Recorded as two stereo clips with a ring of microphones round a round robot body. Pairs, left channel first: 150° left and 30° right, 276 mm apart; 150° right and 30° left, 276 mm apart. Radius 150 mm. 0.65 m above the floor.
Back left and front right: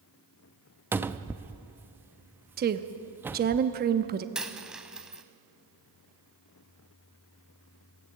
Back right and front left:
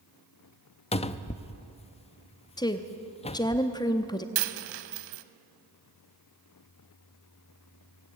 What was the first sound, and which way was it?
A cupboard door, 105° right.